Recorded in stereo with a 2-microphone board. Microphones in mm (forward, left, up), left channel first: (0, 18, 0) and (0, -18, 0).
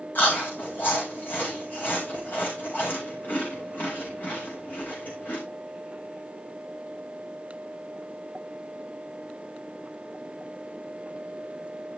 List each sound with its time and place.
0.1 s chewing: 60° left (ahead or behind), 5 m